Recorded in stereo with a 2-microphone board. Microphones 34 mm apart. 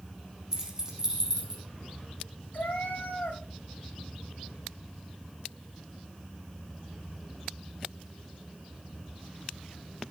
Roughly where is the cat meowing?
Left.